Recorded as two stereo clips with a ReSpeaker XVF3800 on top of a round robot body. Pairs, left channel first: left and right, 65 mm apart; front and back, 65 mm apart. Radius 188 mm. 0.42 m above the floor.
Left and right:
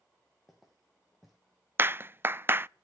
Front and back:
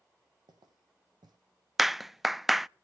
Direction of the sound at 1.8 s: 95° right.